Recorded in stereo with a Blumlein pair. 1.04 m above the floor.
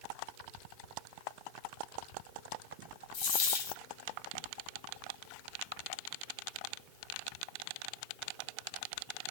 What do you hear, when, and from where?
3.1 s a dropped coin: 50° left, 1.2 m